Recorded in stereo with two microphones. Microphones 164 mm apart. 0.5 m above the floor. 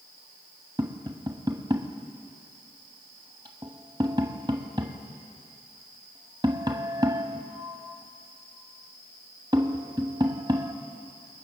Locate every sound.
0.8 s tapping: 25° right (ahead or behind), 1.4 m